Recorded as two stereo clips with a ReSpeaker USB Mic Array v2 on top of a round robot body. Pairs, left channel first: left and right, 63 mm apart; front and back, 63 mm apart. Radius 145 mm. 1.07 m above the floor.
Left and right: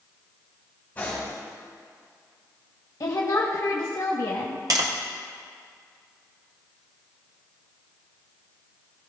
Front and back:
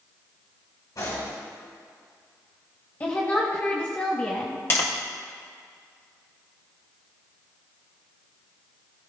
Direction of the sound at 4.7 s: 55° right.